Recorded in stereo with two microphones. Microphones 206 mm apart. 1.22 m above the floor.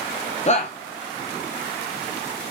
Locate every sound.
0.5 s a shout: 35° left (ahead or behind), 0.7 m